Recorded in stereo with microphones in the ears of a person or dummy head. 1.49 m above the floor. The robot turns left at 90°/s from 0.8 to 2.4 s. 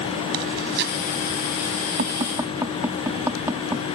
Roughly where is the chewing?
Right.